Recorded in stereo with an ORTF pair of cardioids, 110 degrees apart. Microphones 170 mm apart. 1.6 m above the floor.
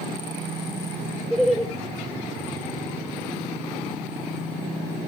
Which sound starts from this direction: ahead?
Laughter, at 1.3 s.